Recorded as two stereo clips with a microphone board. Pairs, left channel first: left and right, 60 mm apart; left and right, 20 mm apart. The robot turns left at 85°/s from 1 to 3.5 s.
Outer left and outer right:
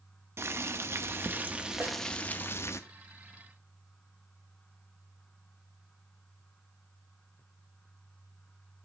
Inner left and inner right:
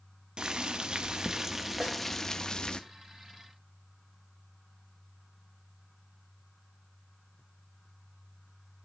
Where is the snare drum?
30° right (ahead or behind), 1.8 m; by 2.0 s 45° right (ahead or behind), 1.8 m.